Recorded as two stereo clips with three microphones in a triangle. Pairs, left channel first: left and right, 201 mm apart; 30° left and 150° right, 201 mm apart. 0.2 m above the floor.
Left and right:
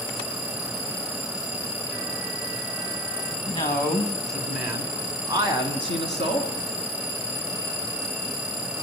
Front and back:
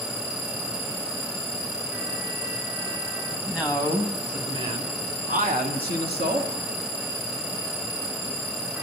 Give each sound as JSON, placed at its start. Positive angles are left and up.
{"t": 3.5, "sound": "a man speaking", "azimuth_deg": 125, "distance_m": 1.5}